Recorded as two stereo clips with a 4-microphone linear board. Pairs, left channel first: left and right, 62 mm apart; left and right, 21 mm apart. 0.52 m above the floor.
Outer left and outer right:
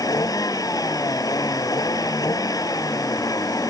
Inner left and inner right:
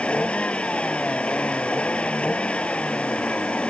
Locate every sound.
0.0 s a vehicle: 85° left